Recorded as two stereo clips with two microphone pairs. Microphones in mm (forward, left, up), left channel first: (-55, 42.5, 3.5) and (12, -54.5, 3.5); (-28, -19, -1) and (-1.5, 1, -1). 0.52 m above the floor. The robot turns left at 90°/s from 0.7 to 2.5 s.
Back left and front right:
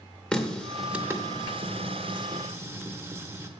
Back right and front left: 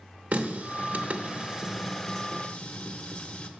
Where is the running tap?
45° left, 0.7 m; by 3.5 s 120° right, 0.7 m.